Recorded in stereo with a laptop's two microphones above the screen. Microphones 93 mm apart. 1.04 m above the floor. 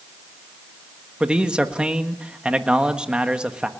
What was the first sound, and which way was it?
A man speaking, 10° right (ahead or behind).